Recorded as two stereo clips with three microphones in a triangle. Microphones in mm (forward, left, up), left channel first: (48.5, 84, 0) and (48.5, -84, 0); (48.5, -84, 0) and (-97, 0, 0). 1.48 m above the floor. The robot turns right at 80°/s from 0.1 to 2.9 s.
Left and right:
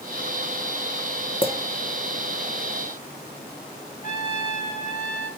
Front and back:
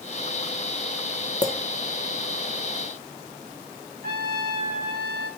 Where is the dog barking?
I don't hear a dog barking.